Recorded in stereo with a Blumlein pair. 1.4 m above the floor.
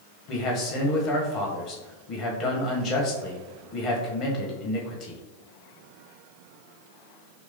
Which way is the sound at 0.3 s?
35° left.